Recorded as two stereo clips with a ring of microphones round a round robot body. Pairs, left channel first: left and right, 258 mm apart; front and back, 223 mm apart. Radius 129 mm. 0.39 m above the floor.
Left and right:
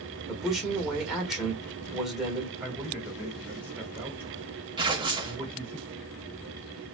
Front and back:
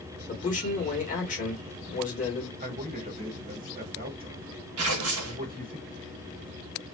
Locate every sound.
0.3 s a man speaking: 5° right, 1.3 m
2.6 s a man speaking: 170° right, 1.3 m
4.8 s tearing paper: 160° right, 0.7 m